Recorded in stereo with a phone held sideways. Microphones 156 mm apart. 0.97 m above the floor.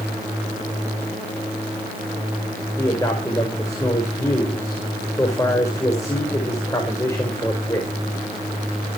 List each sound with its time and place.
2.8 s a man speaking: 20° left (ahead or behind), 4.5 m